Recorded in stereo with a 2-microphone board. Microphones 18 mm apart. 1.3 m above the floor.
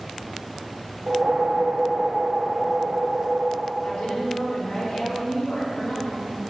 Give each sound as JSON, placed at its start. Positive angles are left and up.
{"t": 1.1, "sound": "a whoosh", "side_deg": -60, "distance_m": 0.7}
{"t": 3.8, "sound": "a woman speaking", "side_deg": 80, "distance_m": 2.0}